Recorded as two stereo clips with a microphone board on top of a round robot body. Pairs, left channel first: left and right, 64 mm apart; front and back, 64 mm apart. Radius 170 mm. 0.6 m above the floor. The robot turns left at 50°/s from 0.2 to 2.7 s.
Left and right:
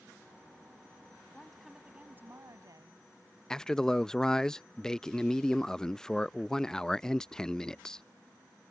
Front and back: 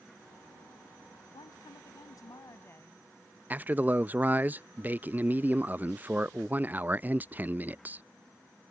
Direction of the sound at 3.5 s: 160° left.